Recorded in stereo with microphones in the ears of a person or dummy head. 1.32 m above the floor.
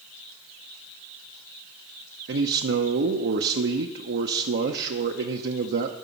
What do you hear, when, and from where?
2.3 s a man speaking: 60° right (ahead or behind), 0.6 m